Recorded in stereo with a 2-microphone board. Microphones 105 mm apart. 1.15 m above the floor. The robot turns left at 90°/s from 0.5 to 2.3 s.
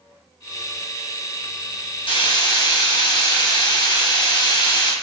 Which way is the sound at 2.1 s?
50° left (ahead or behind).